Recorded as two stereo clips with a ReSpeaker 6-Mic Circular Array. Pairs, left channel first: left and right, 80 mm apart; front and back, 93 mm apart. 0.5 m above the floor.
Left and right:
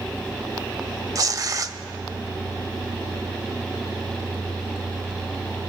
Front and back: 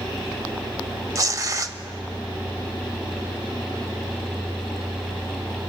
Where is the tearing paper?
130° right, 0.5 m.